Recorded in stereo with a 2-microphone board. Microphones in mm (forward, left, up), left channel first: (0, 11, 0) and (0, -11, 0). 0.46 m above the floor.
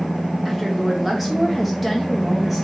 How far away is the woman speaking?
About 0.8 m.